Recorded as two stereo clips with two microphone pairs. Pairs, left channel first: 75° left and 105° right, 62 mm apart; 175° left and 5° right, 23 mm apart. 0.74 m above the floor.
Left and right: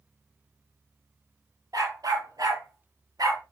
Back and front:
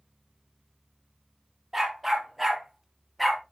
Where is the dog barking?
85° right, 4.5 m; by 3.4 s 100° right, 3 m.